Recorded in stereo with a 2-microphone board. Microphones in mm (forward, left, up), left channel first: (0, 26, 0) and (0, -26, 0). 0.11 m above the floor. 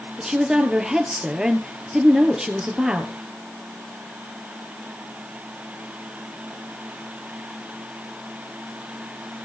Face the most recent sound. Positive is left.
turn(degrees=-10)  # may be behind; listen again after turning